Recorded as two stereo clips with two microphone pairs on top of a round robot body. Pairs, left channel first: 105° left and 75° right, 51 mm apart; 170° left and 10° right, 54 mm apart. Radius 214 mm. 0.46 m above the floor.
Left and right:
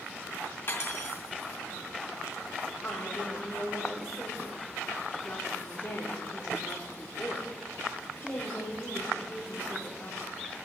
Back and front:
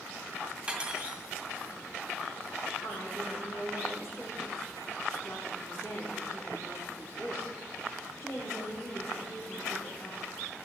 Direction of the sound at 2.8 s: 170° left.